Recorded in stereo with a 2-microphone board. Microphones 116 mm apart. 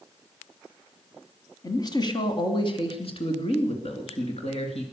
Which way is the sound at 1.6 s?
35° left (ahead or behind).